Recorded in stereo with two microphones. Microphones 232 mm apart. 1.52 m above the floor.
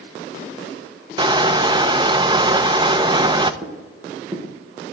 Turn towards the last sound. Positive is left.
turn(degrees=-15)  # may be behind; listen again after turning